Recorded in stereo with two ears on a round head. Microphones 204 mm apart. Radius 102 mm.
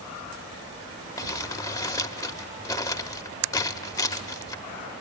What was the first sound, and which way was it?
Crumpling, 15° left (ahead or behind).